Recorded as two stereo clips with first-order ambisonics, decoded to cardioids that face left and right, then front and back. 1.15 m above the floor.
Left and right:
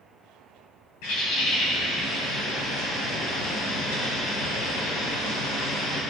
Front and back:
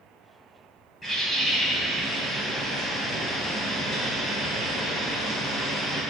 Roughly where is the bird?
Left.